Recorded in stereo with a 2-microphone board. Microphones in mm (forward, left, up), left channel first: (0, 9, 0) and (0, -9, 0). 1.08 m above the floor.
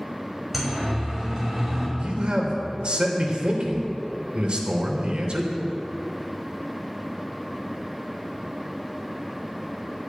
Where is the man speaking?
55° right (ahead or behind), 3.5 m.